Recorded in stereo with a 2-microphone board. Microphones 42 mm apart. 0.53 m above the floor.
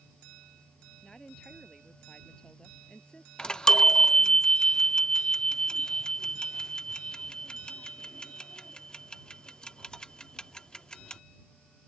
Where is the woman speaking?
20° left (ahead or behind).